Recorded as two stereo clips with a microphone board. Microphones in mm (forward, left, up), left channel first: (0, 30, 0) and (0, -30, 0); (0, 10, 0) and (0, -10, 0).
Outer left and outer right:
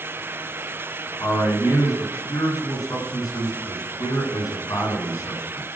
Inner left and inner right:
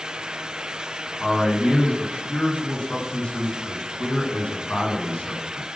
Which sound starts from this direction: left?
A man speaking, at 1.2 s.